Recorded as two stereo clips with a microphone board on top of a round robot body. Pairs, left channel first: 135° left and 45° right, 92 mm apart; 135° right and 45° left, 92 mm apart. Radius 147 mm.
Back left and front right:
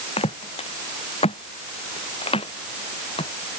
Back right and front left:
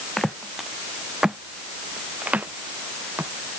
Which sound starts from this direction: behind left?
Footsteps, at 0.2 s.